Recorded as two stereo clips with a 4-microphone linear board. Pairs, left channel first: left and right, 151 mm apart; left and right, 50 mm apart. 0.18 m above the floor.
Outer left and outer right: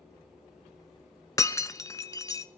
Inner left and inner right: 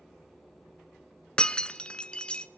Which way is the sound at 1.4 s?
20° left (ahead or behind).